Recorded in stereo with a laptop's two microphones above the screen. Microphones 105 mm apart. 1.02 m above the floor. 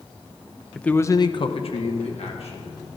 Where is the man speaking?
5° left (ahead or behind), 0.6 m; by 2.8 s 70° left (ahead or behind), 1.5 m.